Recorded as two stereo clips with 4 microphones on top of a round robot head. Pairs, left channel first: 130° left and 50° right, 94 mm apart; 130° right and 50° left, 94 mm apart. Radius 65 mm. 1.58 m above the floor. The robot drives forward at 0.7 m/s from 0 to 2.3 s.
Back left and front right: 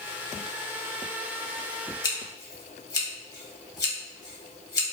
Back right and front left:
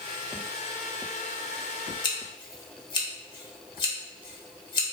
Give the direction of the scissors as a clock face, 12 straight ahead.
6 o'clock.